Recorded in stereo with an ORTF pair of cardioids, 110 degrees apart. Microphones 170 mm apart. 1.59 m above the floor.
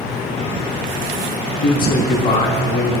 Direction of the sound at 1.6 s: 65° left.